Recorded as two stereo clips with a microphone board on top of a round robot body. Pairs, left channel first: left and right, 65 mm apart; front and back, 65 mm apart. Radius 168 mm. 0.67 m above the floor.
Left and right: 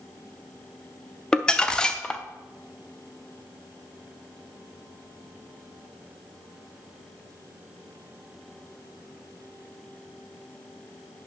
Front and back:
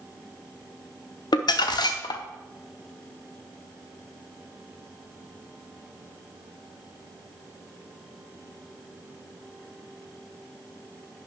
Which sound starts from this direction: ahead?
Crumpling, at 1.3 s.